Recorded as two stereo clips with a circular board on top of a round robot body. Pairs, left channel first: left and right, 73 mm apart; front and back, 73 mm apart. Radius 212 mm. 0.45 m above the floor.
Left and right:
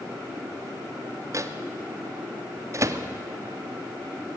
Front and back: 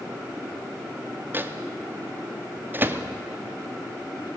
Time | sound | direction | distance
1.3 | a microwave | 125° right | 0.9 m